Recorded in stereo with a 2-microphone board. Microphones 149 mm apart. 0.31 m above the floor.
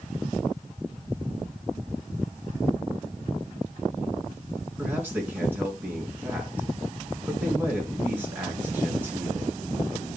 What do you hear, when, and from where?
4.8 s a man speaking: 15° right (ahead or behind), 4.5 m